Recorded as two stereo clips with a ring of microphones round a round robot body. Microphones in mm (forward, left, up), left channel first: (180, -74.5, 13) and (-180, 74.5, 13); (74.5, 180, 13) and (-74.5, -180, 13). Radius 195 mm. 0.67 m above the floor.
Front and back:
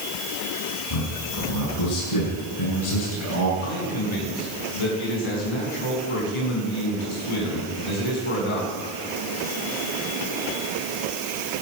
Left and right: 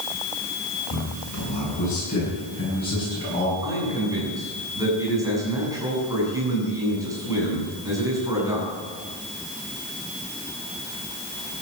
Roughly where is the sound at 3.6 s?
Ahead right.